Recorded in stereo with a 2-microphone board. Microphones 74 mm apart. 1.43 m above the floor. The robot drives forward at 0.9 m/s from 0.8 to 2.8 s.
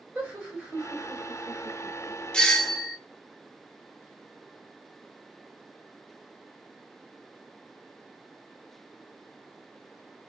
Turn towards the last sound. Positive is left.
turn(degrees=10)  # may be behind; listen again after turning